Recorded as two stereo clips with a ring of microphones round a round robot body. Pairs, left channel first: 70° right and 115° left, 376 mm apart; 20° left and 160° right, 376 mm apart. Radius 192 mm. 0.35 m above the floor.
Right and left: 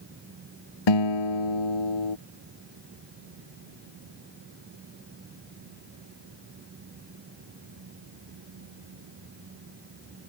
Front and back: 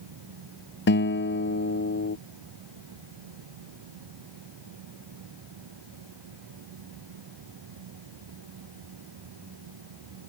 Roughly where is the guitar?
Ahead right.